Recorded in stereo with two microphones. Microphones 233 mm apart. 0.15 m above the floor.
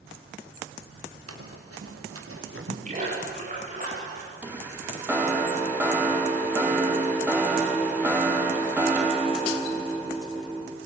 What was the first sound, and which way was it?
Running footsteps, 85° right.